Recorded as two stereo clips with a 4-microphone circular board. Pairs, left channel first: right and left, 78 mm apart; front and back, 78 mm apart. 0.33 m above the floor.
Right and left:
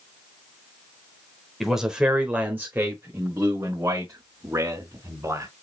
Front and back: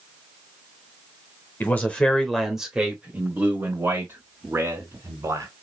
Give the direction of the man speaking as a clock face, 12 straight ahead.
12 o'clock.